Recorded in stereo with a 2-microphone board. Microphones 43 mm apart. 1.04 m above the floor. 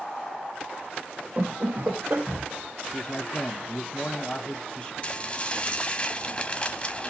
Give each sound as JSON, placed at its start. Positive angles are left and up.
{"t": 1.4, "sound": "laughter", "side_deg": -40, "distance_m": 0.9}
{"t": 2.9, "sound": "a man speaking", "side_deg": 20, "distance_m": 0.9}
{"t": 5.0, "sound": "dishes clattering", "side_deg": 30, "distance_m": 1.2}